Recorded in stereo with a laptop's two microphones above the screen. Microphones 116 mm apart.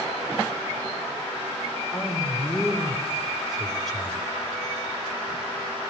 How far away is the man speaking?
About 4 m.